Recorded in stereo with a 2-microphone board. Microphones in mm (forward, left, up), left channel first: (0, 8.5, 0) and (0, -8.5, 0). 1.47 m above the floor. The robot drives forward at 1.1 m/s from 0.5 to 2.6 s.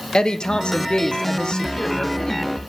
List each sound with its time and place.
0.1 s a woman speaking: 60° left (ahead or behind), 1.0 m; by 2.6 s 25° left (ahead or behind), 2 m